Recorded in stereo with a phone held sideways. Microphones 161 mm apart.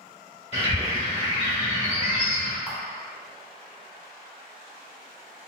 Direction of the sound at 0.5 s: 40° left (ahead or behind).